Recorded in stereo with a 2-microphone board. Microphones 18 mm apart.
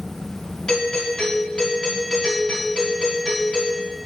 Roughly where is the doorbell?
Left.